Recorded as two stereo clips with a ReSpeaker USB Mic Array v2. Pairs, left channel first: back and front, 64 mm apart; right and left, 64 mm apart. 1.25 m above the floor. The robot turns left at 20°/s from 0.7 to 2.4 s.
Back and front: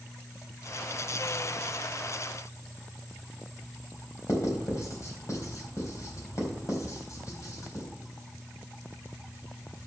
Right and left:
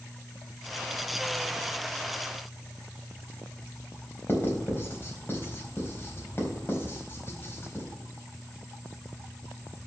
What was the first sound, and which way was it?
Writing, 145° right.